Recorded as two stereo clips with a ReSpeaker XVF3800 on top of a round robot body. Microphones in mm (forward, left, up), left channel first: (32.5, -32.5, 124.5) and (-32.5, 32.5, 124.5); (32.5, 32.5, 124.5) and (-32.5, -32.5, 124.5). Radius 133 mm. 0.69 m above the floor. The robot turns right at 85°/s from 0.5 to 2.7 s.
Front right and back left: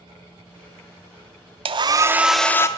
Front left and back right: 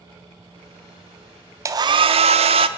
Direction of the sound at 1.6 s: 165° left.